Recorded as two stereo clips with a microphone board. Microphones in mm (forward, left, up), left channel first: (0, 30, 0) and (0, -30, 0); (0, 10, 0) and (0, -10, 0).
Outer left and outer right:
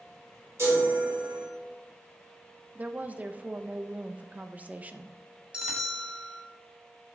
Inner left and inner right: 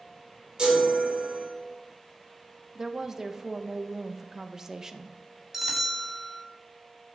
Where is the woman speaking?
25° right (ahead or behind), 0.6 m.